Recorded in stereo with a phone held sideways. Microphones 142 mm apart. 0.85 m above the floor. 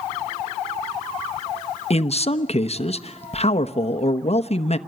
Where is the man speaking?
45° left (ahead or behind), 1.0 m.